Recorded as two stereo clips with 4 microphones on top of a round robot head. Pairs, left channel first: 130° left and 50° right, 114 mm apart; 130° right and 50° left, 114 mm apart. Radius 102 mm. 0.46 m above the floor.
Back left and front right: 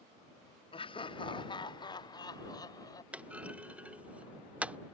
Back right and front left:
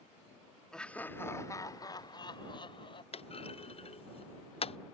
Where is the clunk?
125° right.